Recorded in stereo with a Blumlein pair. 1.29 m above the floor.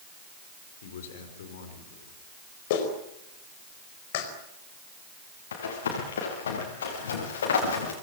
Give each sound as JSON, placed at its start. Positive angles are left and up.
{"t": 0.8, "sound": "a man speaking", "azimuth_deg": 60, "distance_m": 5.0}
{"t": 2.7, "sound": "a clap", "azimuth_deg": 50, "distance_m": 4.5}
{"t": 5.5, "sound": "running footsteps", "azimuth_deg": 65, "distance_m": 7.5}